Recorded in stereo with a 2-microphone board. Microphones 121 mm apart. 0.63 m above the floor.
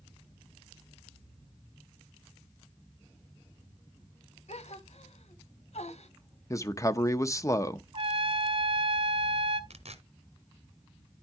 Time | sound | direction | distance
4.5 | a gasp | 70° left (ahead or behind) | 1.1 m
6.5 | a man speaking | 30° left (ahead or behind) | 0.7 m
7.9 | a trumpet | 45° right (ahead or behind) | 1.4 m
9.7 | tearing paper | 65° right (ahead or behind) | 1.3 m